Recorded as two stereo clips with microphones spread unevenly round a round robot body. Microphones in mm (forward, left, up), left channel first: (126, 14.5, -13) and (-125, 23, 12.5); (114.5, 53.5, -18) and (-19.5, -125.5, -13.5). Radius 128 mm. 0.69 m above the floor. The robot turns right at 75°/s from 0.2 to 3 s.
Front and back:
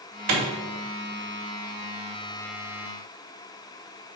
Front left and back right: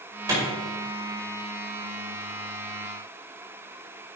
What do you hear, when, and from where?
0.3 s a clap: 155° left, 3 m; by 0.4 s 165° left, 3 m